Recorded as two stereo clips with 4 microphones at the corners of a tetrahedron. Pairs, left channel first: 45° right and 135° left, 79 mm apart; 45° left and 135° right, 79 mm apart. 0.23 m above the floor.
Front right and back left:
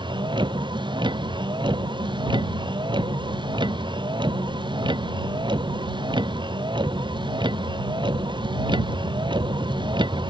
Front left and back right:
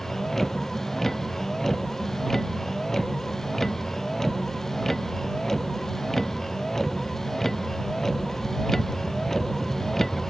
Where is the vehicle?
130° left.